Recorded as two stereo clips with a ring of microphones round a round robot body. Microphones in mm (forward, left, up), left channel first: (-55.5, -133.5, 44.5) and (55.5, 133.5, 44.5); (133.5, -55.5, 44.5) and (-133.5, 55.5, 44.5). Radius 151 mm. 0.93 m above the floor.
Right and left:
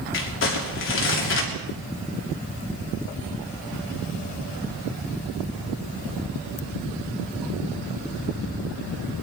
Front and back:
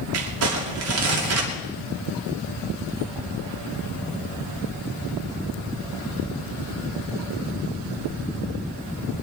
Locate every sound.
0.1 s crumpling: 160° right, 3 m